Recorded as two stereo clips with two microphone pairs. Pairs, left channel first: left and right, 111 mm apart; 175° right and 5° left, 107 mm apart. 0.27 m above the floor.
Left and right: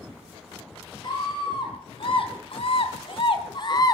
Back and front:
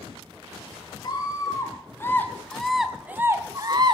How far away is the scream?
About 3 m.